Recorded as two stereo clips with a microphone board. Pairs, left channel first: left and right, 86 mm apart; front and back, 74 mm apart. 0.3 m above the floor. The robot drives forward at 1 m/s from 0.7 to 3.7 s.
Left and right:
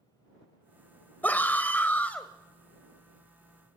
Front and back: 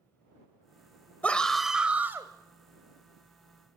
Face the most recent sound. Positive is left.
turn(degrees=170)